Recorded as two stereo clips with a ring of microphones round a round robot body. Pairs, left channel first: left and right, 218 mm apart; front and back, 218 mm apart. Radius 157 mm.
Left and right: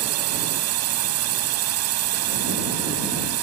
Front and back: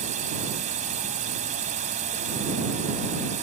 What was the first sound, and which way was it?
A drone, 110° right.